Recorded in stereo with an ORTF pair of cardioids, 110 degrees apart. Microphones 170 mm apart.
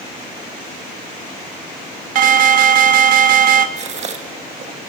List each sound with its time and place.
2.1 s an alarm: 55° right, 1.3 m
3.8 s a gasp: 45° right, 2 m